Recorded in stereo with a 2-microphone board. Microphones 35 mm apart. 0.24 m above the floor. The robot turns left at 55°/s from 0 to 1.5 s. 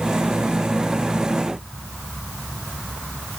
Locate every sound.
Only background noise.